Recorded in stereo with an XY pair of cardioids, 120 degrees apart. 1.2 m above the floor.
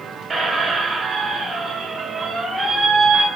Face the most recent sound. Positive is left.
turn(degrees=-30)